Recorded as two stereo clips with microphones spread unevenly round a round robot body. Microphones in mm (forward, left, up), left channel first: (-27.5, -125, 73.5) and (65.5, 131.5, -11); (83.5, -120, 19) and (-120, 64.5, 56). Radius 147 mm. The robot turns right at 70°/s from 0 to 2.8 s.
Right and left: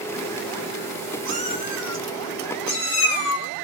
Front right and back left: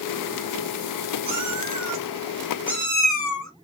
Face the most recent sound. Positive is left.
turn(degrees=-120)